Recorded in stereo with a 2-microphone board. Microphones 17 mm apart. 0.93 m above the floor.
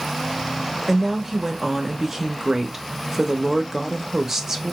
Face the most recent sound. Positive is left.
turn(degrees=-20)  # may be behind; listen again after turning